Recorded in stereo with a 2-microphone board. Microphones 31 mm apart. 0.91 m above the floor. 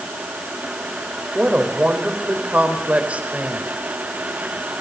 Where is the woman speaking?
45° right (ahead or behind), 4 m.